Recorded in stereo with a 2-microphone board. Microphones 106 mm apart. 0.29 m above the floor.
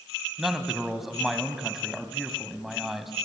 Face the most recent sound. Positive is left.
turn(degrees=0)  # may be behind; listen again after turning